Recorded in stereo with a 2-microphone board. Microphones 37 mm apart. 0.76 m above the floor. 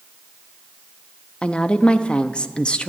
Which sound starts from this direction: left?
A woman speaking, at 1.4 s.